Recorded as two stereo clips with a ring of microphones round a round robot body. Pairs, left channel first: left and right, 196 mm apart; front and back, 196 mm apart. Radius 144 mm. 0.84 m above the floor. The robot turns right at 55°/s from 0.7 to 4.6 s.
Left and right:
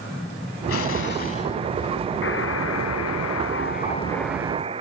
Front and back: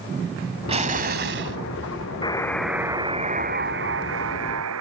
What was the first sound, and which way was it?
An explosion, 120° left.